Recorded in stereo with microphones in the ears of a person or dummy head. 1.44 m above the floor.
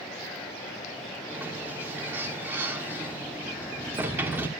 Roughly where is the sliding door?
Centre.